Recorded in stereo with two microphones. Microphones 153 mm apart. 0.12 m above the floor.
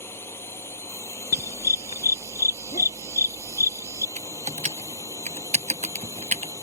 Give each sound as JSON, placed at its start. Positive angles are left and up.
{"t": 0.0, "sound": "a drone", "side_deg": 15}
{"t": 1.3, "sound": "a dog barking", "side_deg": 50}
{"t": 4.2, "sound": "typing on a keyboard", "side_deg": -50}